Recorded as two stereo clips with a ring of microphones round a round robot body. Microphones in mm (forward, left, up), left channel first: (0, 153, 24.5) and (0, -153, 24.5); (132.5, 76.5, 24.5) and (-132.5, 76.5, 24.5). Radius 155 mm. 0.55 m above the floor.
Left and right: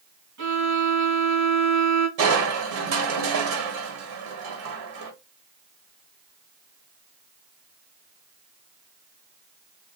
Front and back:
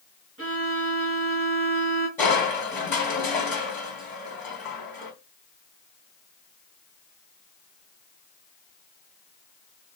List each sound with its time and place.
0.4 s a violin: 130° right, 2.5 m
2.2 s crushing: 80° right, 1.6 m